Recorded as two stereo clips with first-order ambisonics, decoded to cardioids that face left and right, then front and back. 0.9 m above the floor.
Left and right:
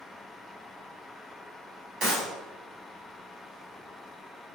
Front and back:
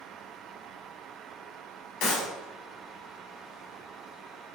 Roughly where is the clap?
Ahead right.